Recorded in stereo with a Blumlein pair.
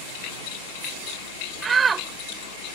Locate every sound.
0.0 s a fan: 60° right
1.6 s a shout: 20° right